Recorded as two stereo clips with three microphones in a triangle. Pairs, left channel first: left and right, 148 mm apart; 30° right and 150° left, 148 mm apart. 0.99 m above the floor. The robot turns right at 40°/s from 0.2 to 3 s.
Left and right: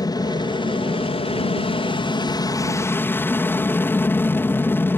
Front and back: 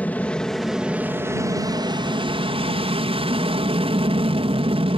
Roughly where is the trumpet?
No trumpet in this recording.